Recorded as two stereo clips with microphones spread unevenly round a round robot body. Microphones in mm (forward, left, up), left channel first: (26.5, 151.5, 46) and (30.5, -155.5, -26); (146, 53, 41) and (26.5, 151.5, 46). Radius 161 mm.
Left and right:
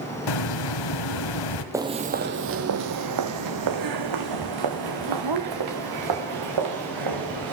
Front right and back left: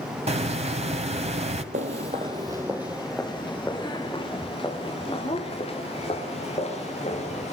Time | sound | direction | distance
0.3 | a hiss | 95° left | 1.9 m
1.7 | footsteps | straight behind | 1.0 m